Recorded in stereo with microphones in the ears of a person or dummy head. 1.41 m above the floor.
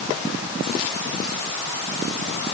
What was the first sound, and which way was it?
Only background noise.